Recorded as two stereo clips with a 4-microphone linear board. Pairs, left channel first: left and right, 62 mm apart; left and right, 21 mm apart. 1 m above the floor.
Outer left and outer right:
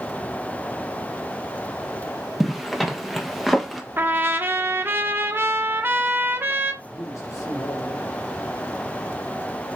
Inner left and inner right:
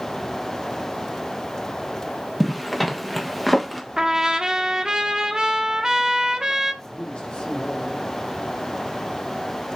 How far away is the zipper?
About 1.5 m.